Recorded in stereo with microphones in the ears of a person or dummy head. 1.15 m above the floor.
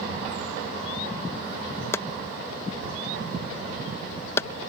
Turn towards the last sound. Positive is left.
turn(degrees=15)  # may be behind; listen again after turning